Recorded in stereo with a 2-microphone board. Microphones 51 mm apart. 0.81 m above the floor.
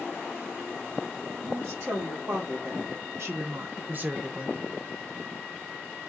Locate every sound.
1.4 s a woman speaking: 65° right (ahead or behind), 1.9 m; by 4.6 s 15° right (ahead or behind), 0.9 m